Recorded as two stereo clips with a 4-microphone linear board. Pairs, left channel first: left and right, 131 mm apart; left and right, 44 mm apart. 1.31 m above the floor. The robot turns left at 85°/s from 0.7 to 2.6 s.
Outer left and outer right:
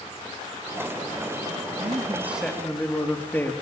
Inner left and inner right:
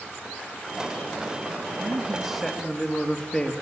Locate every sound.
1.8 s a man speaking: 125° right, 3 m; by 3.5 s 165° left, 3 m